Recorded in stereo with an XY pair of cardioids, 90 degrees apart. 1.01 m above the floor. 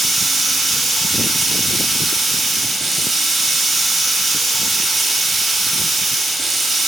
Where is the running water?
20° right, 2 m.